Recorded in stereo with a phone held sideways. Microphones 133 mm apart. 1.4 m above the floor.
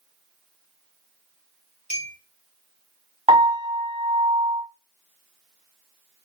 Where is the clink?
55° left (ahead or behind), 0.8 m.